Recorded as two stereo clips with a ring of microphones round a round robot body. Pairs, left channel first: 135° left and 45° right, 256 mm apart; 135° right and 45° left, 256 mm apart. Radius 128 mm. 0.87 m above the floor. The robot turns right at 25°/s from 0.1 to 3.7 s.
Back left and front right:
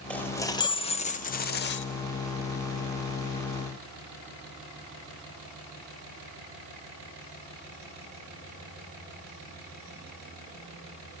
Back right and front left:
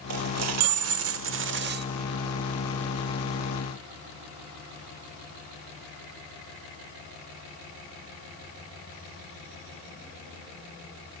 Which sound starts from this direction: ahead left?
A dropped coin, at 0.1 s.